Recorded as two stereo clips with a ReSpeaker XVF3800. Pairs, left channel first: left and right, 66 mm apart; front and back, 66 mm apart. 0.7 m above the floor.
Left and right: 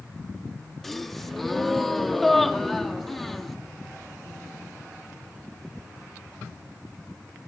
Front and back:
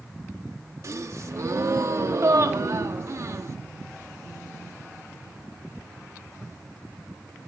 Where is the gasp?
175° left, 1.5 m.